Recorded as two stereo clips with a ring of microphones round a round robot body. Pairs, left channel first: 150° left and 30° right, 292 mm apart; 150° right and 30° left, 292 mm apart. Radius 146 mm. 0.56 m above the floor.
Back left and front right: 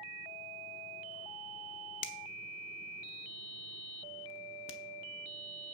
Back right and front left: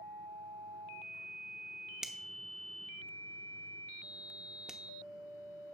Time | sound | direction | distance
2.0 | a finger snap | 120° left | 0.8 m